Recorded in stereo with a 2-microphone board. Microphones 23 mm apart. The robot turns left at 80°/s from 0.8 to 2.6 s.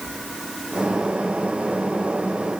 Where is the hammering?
No hammering in this recording.